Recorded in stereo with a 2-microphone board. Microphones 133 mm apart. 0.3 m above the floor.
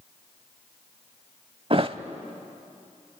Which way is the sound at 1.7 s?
45° right (ahead or behind).